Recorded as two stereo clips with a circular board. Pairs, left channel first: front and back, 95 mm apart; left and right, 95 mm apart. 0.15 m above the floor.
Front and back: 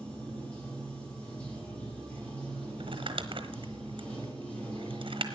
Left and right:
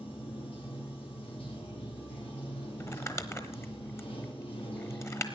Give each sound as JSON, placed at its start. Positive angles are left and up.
{"t": 0.0, "sound": "running water", "azimuth_deg": 80, "distance_m": 5.5}
{"t": 2.8, "sound": "crumpling", "azimuth_deg": 155, "distance_m": 1.0}